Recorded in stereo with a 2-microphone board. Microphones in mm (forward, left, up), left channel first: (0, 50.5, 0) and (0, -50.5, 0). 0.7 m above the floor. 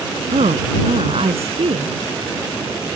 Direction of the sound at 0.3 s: 85° right.